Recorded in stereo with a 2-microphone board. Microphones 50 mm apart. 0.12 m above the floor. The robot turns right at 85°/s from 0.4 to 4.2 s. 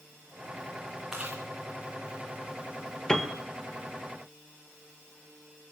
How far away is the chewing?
About 3.5 m.